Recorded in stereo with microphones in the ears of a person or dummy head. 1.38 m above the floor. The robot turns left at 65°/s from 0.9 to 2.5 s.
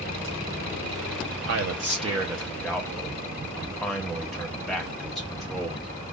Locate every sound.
1.4 s a man speaking: 120° right, 0.9 m; by 5.9 s 170° left, 0.9 m